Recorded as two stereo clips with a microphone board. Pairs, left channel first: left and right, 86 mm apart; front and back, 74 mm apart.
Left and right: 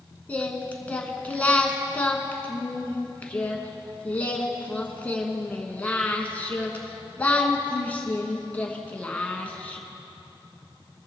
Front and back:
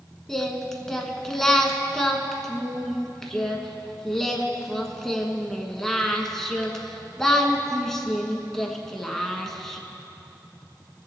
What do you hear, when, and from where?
0.3 s singing: 75° left, 1.2 m